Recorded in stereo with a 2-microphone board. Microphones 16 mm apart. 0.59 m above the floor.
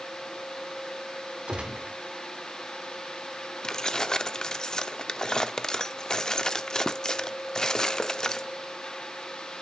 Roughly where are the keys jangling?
Left.